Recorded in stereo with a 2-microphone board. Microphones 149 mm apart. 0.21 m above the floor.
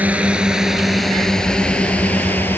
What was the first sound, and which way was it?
A drone, 10° right (ahead or behind).